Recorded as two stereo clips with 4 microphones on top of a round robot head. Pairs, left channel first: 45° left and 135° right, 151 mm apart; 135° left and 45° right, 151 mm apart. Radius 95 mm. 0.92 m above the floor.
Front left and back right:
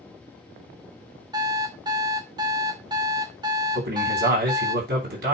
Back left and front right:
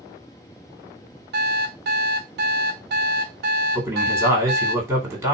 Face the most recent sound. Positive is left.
turn(degrees=-125)